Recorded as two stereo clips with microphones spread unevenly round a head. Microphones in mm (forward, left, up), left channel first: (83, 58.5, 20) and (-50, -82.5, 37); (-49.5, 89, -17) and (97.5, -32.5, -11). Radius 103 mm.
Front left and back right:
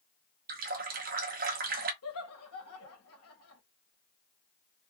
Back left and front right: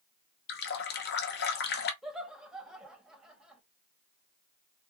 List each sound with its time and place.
0.5 s a running tap: straight behind, 0.8 m
2.0 s laughter: 45° left, 1.9 m